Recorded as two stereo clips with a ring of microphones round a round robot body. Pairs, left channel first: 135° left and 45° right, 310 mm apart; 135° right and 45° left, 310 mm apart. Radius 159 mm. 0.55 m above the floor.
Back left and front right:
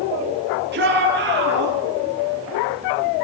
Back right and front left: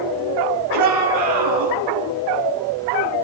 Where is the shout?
15° left, 7.5 m.